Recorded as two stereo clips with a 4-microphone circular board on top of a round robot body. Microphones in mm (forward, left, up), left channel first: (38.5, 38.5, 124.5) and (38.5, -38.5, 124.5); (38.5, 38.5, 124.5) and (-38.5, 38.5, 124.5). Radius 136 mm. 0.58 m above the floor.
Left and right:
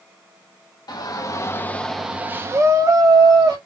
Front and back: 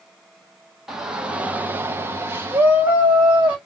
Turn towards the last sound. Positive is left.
turn(degrees=-115)